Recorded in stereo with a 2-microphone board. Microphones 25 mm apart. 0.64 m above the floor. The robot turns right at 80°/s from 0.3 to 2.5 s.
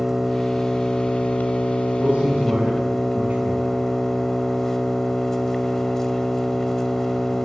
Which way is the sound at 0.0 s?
15° right.